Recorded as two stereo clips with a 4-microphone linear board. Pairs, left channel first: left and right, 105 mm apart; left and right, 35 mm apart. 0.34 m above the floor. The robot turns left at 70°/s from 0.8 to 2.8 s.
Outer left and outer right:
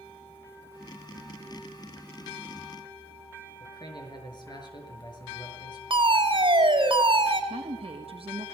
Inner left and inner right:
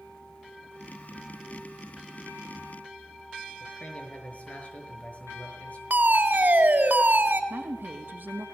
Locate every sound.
3.6 s a man speaking: 45° left (ahead or behind), 6 m
5.9 s a fire alarm: 55° right (ahead or behind), 4.5 m
7.5 s a woman speaking: 65° right (ahead or behind), 3 m